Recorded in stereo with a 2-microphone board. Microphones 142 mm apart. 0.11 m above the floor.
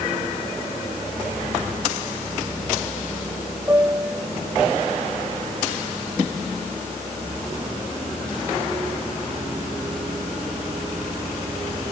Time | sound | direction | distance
3.7 | a piano | 15° right (ahead or behind) | ?